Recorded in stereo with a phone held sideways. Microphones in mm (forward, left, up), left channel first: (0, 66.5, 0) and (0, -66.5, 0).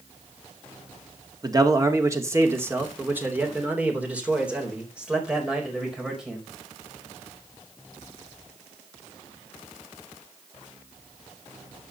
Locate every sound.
1.4 s a man speaking: 30° right (ahead or behind), 1.8 m; by 6.5 s 5° right (ahead or behind), 4.5 m